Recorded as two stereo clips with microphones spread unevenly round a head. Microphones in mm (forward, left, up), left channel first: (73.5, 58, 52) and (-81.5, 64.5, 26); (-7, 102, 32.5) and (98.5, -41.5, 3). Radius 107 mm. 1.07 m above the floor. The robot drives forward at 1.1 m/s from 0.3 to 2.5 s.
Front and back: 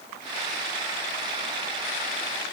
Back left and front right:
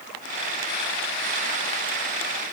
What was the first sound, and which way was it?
Only background noise.